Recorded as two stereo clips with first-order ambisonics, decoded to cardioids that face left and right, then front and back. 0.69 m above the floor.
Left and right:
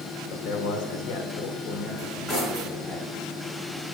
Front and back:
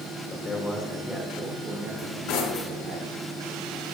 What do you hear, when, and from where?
0.3 s a man speaking: 65° left, 2.0 m; by 3.0 s 150° left, 3 m
2.0 s cutlery clinking: 20° left, 4 m